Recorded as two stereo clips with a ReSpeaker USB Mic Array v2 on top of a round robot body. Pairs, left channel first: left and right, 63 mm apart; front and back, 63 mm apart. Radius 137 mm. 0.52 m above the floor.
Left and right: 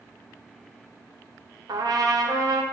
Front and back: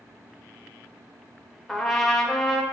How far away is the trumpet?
About 1.1 m.